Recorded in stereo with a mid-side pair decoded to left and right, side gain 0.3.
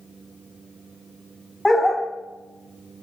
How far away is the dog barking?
About 1.2 m.